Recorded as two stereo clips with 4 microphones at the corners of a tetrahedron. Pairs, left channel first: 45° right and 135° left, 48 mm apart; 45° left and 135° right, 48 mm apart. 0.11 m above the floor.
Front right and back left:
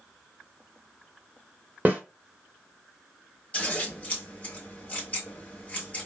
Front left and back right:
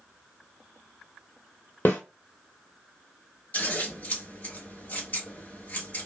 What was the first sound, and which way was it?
A snare drum, 85° left.